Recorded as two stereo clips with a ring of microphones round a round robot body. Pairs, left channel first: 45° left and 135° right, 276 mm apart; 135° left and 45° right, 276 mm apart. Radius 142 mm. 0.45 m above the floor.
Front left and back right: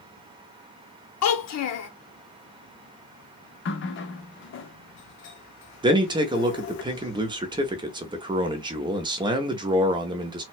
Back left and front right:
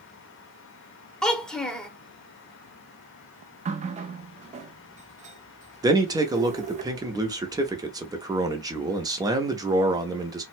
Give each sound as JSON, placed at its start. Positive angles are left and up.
{"t": 1.2, "sound": "a child speaking", "azimuth_deg": 50, "distance_m": 0.9}
{"t": 3.6, "sound": "a running tap", "azimuth_deg": 15, "distance_m": 0.5}
{"t": 5.8, "sound": "a man speaking", "azimuth_deg": -95, "distance_m": 0.7}